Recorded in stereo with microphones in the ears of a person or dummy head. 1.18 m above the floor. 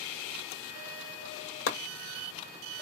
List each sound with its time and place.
1.7 s chopping: 65° left (ahead or behind), 1.2 m